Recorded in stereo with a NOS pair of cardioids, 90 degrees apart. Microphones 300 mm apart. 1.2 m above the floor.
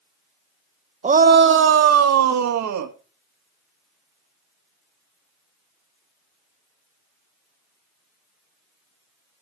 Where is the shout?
25° right, 0.9 m; by 2.9 s 70° right, 1.8 m.